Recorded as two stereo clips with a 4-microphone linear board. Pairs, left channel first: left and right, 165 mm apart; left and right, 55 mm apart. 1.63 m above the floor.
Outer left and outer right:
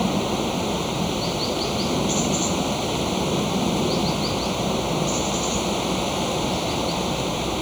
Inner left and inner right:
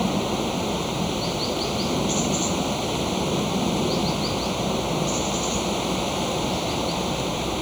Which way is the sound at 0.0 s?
Centre (ahead or behind).